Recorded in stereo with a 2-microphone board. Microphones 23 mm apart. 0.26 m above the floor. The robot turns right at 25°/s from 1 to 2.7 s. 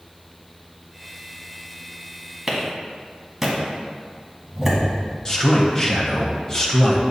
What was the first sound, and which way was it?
A clap, 15° right (ahead or behind).